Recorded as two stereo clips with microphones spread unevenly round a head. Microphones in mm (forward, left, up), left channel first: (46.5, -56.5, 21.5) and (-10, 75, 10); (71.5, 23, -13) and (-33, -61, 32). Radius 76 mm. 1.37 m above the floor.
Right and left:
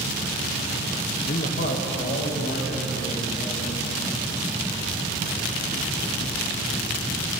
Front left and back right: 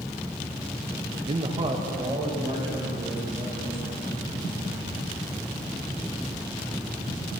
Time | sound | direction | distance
1.3 | a man speaking | 105° right | 0.6 m